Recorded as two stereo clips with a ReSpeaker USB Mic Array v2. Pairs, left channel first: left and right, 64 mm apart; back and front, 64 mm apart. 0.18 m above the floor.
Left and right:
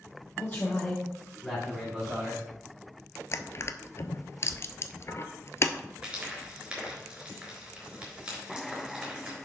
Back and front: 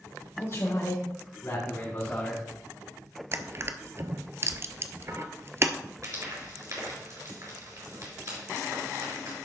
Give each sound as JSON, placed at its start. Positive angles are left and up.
{"t": 0.4, "sound": "a man speaking", "azimuth_deg": 150, "distance_m": 3.5}
{"t": 3.3, "sound": "crushing", "azimuth_deg": 45, "distance_m": 0.5}
{"t": 6.0, "sound": "frying", "azimuth_deg": -20, "distance_m": 3.5}